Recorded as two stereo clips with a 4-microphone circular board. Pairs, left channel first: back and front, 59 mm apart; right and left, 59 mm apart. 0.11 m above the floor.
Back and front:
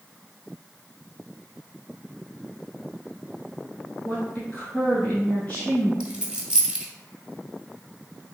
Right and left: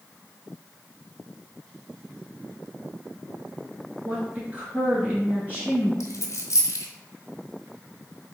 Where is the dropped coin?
75° right, 1.1 m.